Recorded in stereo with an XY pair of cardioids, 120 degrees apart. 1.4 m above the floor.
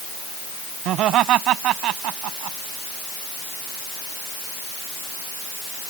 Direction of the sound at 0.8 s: 70° right.